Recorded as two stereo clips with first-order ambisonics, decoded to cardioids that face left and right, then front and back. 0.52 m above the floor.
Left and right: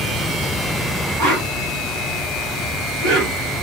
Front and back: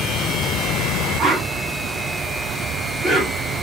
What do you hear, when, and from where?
1.2 s a whoosh: 85° right, 2.5 m